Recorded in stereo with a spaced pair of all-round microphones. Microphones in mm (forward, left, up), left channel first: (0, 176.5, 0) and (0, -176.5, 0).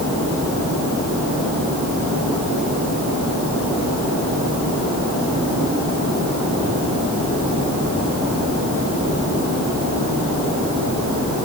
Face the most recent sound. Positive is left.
No sound to turn to.